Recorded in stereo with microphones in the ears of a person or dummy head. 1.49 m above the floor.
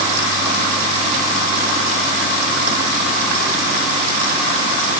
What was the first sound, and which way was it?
Only background noise.